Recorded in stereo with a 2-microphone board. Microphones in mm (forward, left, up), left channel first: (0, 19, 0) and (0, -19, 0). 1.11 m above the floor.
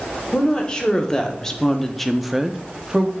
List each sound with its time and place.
0.3 s a woman speaking: 20° left (ahead or behind), 1.2 m; by 3.1 s 25° right (ahead or behind), 0.6 m